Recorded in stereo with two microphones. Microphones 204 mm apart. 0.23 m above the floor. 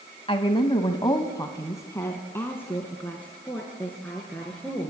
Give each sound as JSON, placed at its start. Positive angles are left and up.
{"t": 0.3, "sound": "a woman speaking", "side_deg": 30, "distance_m": 1.1}